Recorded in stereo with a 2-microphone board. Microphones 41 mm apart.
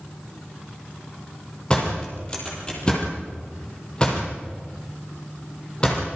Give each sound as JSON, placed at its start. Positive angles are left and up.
{"t": 1.7, "sound": "a door slam", "side_deg": 25, "distance_m": 6.5}